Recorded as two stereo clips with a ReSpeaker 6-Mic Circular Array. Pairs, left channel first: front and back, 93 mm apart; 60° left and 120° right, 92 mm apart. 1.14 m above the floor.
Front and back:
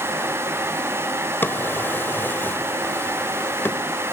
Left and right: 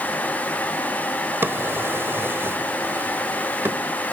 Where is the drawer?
60° right, 1.2 m.